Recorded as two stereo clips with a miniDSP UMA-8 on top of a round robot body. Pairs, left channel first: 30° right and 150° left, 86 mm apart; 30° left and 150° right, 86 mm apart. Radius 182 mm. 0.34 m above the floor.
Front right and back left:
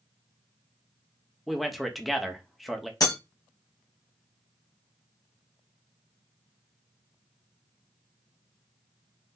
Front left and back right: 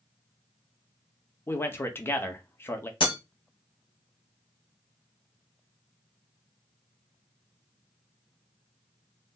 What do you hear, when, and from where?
1.5 s a man speaking: 60° left, 1.0 m
3.0 s breaking glass: 20° left, 1.3 m